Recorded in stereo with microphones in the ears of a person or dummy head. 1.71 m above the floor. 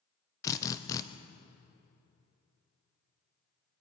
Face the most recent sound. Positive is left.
turn(degrees=15)  # may be behind; listen again after turning